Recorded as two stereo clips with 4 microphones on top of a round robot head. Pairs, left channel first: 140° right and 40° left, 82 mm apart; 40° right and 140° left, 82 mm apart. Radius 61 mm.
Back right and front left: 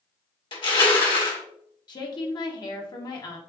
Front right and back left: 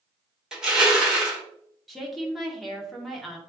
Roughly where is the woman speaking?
Behind right.